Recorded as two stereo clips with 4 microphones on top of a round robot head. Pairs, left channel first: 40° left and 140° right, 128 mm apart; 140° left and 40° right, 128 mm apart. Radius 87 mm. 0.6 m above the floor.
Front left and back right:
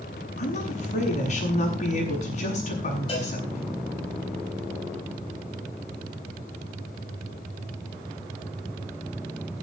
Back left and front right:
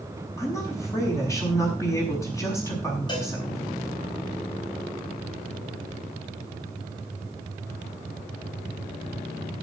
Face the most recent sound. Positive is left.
turn(degrees=85)